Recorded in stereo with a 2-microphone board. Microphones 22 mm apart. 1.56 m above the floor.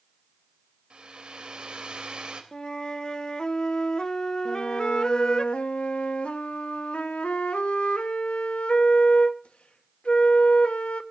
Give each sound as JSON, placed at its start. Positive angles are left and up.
{"t": 0.9, "sound": "a hair dryer", "side_deg": -50, "distance_m": 3.0}
{"t": 2.5, "sound": "a flute", "side_deg": 35, "distance_m": 0.7}
{"t": 4.5, "sound": "a flute", "side_deg": 70, "distance_m": 1.2}